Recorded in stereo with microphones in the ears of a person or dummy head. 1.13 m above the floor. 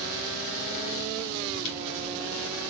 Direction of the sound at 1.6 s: 75° left (ahead or behind).